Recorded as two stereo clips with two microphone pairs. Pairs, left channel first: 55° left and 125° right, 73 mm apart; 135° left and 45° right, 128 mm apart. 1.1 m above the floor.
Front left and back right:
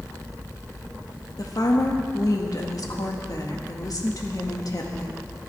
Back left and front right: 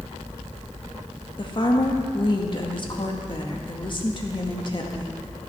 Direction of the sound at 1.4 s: 85° left.